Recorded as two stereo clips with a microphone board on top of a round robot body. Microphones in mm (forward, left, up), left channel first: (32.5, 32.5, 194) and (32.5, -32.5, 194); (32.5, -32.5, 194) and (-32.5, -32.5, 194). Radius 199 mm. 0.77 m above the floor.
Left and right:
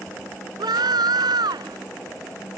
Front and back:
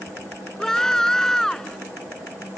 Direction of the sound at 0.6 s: 80° right.